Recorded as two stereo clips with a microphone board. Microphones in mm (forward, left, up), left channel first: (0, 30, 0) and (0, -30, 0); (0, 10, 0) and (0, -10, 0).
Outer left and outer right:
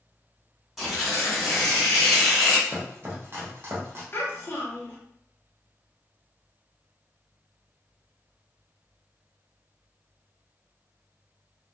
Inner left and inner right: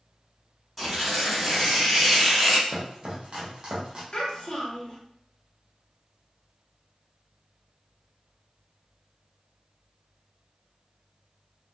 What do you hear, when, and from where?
0.8 s tearing paper: 5° right (ahead or behind), 1.6 m
2.7 s chopping: 45° right (ahead or behind), 0.8 m
4.1 s a child speaking: 40° left (ahead or behind), 0.9 m